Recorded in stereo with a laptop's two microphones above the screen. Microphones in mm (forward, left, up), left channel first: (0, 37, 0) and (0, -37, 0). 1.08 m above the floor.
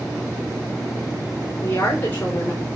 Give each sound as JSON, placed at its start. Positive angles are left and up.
{"t": 1.6, "sound": "a woman speaking", "side_deg": 30, "distance_m": 3.5}